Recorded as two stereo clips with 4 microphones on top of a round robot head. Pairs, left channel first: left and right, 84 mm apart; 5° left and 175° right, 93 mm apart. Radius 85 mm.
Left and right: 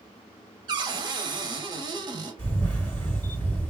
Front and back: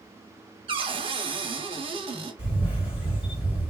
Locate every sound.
0.7 s a cupboard door: 135° right, 0.6 m
2.4 s a camera shutter: 25° left, 2.5 m